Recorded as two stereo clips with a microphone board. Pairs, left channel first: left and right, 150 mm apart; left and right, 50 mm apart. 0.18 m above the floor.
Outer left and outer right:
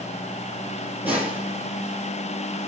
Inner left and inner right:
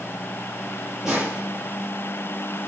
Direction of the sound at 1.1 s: 15° right (ahead or behind).